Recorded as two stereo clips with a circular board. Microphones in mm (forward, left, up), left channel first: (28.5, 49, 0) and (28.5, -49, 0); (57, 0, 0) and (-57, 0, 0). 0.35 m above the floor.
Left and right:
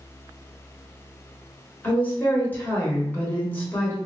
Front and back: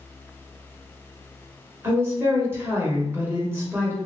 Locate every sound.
1.8 s a woman speaking: 135° left, 1.1 m